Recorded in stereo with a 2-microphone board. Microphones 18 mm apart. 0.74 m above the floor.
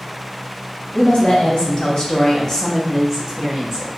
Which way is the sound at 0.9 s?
60° left (ahead or behind).